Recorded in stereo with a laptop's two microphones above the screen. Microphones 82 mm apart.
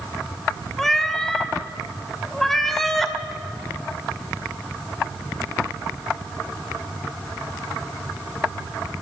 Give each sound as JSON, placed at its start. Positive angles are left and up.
{"t": 0.8, "sound": "a cat meowing", "side_deg": 5, "distance_m": 2.0}